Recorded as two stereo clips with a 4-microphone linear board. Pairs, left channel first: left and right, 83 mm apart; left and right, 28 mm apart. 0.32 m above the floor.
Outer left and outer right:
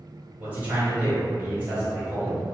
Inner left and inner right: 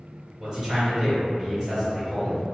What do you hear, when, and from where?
0.4 s a man speaking: 20° right (ahead or behind), 1.4 m